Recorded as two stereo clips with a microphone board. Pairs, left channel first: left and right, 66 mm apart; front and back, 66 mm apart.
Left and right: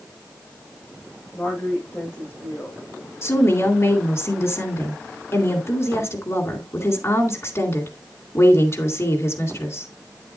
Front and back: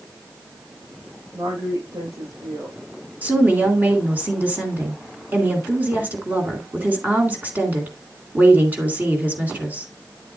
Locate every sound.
1.3 s a woman speaking: 150° left, 7.5 m
3.2 s a woman speaking: 120° left, 2.5 m